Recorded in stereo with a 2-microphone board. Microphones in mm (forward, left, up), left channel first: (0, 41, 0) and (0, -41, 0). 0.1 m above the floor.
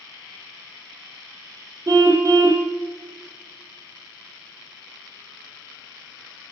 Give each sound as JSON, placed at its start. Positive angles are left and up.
{"t": 1.9, "sound": "a car horn", "side_deg": -40, "distance_m": 2.5}